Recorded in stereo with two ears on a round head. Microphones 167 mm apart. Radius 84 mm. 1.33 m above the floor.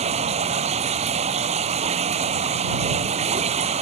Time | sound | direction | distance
0.0 | running water | 35° right (ahead or behind) | ?